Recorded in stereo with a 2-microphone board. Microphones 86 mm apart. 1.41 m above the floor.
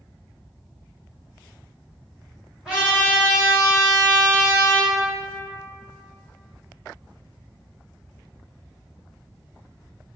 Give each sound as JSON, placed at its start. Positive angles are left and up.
{"t": 2.6, "sound": "a trumpet", "side_deg": -5, "distance_m": 1.5}